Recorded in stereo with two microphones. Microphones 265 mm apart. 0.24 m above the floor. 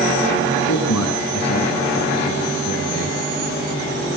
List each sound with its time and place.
0.7 s a man speaking: 75° left (ahead or behind), 9 m